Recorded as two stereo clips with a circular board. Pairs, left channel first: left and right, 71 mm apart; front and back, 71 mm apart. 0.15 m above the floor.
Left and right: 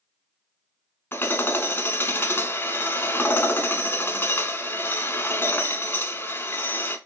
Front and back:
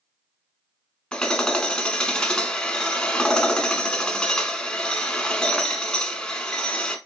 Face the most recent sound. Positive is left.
turn(degrees=70)